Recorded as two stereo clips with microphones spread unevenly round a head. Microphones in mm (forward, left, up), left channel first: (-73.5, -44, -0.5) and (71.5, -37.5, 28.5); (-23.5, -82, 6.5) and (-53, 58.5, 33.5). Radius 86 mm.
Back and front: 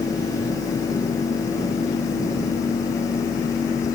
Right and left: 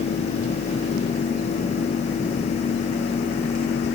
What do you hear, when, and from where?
Only background noise.